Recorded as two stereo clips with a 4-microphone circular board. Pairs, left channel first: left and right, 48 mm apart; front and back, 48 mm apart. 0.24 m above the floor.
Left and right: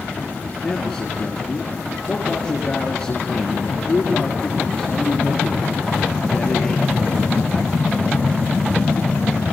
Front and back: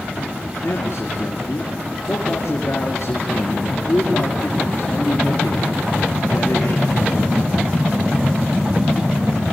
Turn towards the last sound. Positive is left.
turn(degrees=15)